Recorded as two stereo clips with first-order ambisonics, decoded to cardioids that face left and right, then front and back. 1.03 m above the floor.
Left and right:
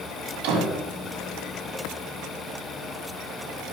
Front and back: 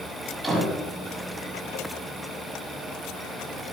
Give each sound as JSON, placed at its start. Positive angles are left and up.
{"t": 0.4, "sound": "a door slam", "azimuth_deg": -95, "distance_m": 6.0}